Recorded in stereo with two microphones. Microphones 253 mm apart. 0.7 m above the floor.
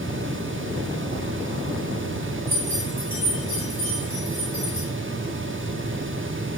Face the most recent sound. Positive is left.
turn(degrees=-65)  # may be behind; listen again after turning